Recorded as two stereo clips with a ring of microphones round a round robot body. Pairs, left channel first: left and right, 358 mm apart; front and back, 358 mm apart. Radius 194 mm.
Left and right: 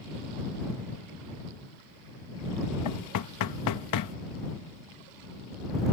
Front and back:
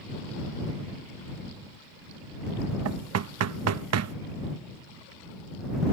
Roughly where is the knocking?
Behind left.